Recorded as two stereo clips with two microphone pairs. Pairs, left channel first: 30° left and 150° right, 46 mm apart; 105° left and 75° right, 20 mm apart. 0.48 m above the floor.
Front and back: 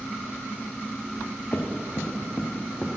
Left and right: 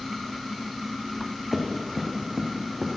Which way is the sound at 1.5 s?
5° left.